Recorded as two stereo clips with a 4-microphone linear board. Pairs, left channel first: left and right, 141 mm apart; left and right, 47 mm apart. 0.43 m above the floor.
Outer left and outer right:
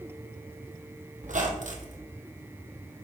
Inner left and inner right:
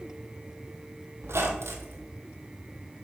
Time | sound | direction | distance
1.2 | a squeak | 70° right (ahead or behind) | 1.3 m